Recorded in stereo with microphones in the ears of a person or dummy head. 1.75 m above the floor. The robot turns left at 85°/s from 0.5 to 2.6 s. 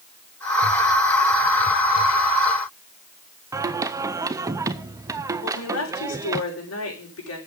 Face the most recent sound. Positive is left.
turn(degrees=85)